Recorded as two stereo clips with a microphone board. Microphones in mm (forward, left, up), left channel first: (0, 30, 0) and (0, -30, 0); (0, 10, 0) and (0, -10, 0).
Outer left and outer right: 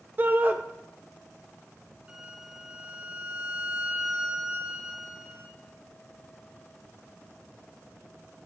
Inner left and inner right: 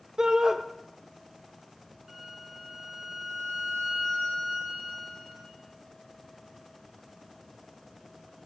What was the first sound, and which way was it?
A shout, 30° right (ahead or behind).